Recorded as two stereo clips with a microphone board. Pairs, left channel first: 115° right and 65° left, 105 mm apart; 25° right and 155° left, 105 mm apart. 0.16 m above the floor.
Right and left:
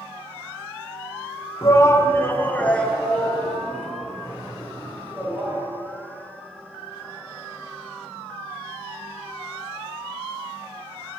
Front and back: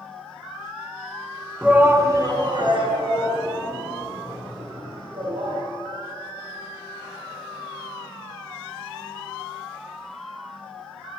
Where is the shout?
130° right, 1.2 m; by 5.6 s 150° left, 4.5 m.